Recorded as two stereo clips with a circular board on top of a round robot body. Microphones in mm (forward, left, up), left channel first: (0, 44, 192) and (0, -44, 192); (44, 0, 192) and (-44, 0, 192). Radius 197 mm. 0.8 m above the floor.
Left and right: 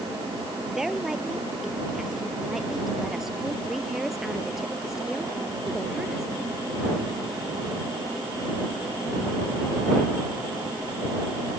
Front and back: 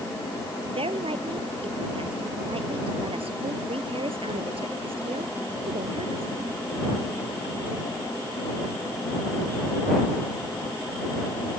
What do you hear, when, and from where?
0.7 s a woman speaking: 175° right